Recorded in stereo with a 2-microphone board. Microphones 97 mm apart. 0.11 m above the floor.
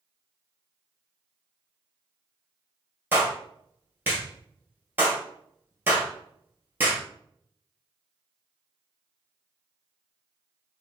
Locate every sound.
3.1 s a clap: 20° right (ahead or behind), 2.0 m